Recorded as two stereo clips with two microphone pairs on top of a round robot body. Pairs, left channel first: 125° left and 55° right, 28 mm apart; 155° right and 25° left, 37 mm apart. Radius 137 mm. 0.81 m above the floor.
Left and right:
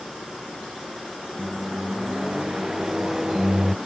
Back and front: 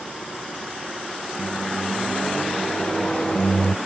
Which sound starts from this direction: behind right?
A microwave, at 1.4 s.